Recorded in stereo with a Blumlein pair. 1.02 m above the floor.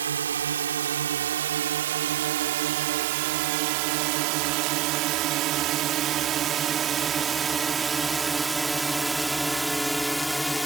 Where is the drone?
70° right; by 10.7 s 5° left.